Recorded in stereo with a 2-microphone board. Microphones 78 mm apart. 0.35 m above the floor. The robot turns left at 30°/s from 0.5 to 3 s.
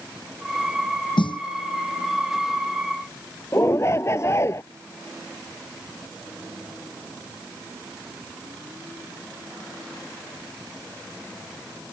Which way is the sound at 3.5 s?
35° left (ahead or behind).